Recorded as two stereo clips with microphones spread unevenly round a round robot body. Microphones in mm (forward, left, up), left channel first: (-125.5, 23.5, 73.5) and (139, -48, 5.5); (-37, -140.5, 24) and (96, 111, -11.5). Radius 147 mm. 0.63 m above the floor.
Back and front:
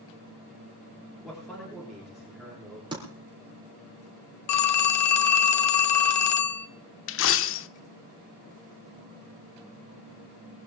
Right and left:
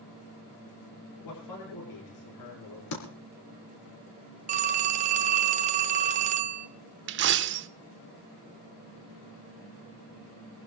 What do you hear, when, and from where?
1.2 s a man speaking: 105° right, 8.5 m
2.9 s typing on a keyboard: 90° right, 4 m
4.5 s a phone ringing: 130° left, 0.9 m
7.1 s a dropped coin: 115° left, 0.6 m